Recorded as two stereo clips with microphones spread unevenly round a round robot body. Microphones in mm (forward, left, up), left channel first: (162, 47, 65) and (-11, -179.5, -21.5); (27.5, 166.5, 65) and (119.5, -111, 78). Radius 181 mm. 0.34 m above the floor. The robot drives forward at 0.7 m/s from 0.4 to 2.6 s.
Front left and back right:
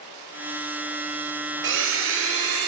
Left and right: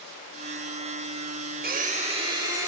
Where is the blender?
125° right, 1.0 m; by 2.7 s 150° right, 1.5 m.